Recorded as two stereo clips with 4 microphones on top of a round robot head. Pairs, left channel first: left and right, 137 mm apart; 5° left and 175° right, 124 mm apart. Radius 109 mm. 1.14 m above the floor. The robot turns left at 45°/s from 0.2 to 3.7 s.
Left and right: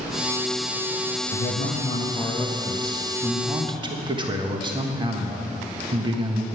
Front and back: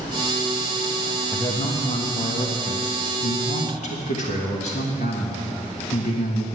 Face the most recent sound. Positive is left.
turn(degrees=-35)